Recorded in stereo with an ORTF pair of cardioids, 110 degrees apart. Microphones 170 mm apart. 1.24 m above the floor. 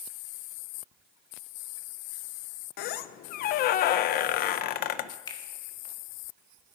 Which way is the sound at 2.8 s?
70° left.